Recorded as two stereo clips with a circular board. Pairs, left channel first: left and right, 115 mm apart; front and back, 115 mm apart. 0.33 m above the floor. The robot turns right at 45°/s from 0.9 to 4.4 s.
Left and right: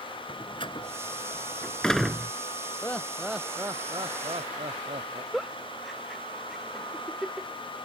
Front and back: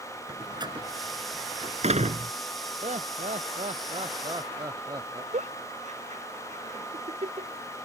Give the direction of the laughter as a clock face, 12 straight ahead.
7 o'clock.